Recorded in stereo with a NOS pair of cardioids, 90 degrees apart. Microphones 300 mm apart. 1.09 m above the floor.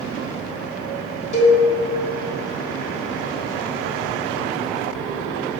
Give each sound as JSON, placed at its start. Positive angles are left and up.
{"t": 1.3, "sound": "a cowbell", "azimuth_deg": 25, "distance_m": 1.4}